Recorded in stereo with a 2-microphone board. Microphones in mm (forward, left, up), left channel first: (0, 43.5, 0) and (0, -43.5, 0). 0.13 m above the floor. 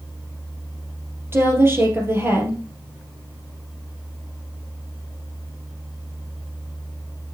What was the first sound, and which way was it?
A woman speaking, 25° right (ahead or behind).